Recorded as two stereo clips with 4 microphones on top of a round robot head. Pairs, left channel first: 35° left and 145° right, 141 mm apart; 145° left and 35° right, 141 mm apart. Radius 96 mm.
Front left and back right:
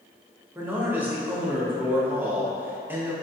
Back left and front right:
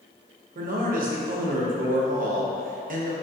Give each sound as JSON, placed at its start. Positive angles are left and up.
{"t": 0.6, "sound": "a man speaking", "azimuth_deg": -65, "distance_m": 0.7}